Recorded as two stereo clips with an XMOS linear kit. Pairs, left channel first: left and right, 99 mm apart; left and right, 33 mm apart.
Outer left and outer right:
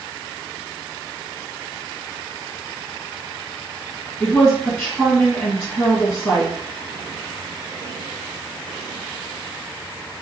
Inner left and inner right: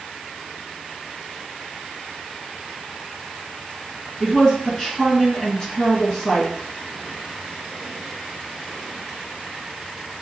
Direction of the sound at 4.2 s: 5° left (ahead or behind).